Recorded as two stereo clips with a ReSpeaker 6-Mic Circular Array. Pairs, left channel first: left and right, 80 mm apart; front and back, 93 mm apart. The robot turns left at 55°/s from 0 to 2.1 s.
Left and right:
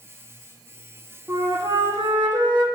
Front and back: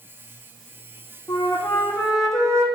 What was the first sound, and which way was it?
A flute, 40° right.